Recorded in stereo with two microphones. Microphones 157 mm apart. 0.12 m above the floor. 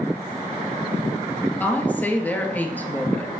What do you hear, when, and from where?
1.6 s a woman speaking: 10° left (ahead or behind), 2.5 m